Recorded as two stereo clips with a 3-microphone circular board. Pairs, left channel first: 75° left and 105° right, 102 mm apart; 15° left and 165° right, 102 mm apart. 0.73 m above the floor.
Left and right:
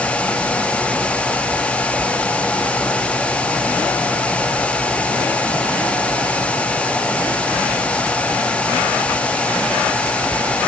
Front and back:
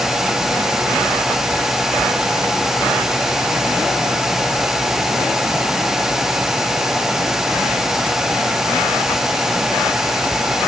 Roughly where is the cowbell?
No cowbell in this recording.